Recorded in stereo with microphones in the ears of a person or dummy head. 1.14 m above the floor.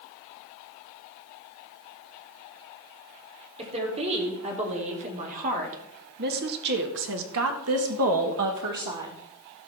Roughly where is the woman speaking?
Right.